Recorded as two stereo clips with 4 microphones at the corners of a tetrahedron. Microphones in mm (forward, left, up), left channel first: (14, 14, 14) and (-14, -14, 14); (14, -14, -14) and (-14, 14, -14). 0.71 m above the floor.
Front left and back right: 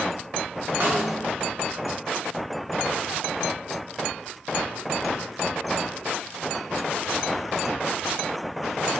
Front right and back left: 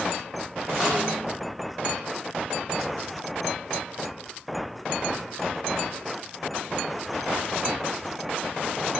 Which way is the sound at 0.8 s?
145° right.